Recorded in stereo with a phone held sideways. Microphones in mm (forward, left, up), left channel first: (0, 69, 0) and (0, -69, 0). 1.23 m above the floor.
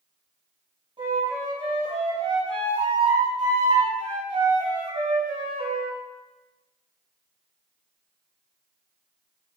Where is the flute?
35° right (ahead or behind), 6 m.